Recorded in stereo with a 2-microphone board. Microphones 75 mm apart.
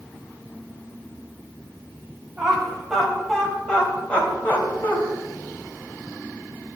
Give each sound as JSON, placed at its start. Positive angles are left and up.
{"t": 2.4, "sound": "laughter", "side_deg": -10, "distance_m": 3.0}